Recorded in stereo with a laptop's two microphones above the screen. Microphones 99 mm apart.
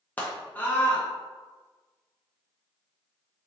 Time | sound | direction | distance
0.2 | a scream | 15° left (ahead or behind) | 0.8 m